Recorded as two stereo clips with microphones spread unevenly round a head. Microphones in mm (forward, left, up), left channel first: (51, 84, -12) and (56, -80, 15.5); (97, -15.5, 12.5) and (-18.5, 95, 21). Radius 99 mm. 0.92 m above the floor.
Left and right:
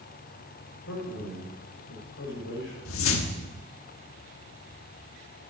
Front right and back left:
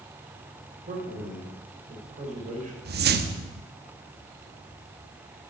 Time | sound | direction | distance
0.9 | a man speaking | 95° left | 4.5 m
2.9 | a whoosh | 110° left | 0.9 m